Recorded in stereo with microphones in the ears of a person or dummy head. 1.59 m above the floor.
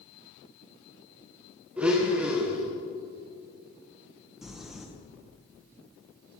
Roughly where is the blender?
Centre.